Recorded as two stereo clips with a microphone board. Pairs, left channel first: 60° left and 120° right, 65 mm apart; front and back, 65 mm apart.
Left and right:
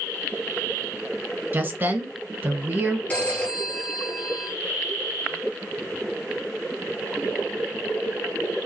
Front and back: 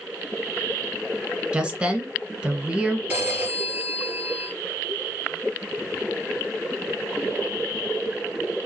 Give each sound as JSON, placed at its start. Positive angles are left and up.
{"t": 1.5, "sound": "a woman speaking", "azimuth_deg": -120, "distance_m": 1.1}
{"t": 3.1, "sound": "a phone ringing", "azimuth_deg": 120, "distance_m": 1.7}